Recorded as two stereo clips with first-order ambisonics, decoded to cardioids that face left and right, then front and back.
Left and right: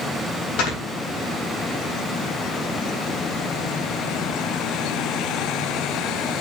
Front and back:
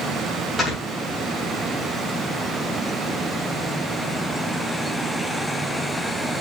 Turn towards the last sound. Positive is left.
turn(degrees=90)